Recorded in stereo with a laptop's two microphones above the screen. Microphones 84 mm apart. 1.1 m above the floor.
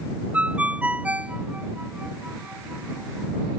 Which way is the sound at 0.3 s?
15° right (ahead or behind).